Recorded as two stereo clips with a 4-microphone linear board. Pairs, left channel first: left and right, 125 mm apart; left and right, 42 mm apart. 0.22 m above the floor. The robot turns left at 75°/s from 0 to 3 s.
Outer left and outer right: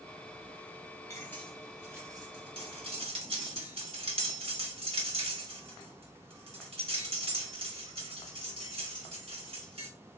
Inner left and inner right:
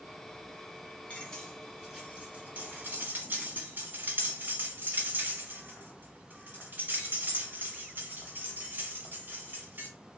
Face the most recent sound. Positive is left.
turn(degrees=-50)  # may be behind; listen again after turning